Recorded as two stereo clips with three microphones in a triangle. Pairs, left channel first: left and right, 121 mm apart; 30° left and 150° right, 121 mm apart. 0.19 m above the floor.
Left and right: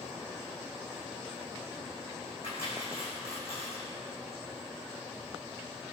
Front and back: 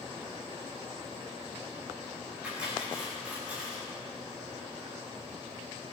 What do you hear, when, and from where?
2.4 s cutlery clinking: 130° left, 6.5 m